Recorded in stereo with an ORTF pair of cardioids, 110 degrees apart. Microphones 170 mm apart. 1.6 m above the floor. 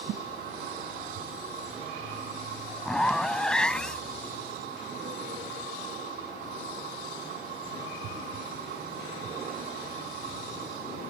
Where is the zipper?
5° left.